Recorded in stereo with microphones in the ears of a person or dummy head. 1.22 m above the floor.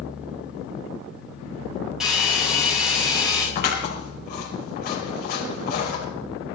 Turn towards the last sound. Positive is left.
turn(degrees=50)  # may be behind; listen again after turning